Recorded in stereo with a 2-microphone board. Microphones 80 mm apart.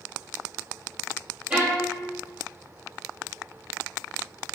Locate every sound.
1.5 s a violin: 15° right (ahead or behind), 1.1 m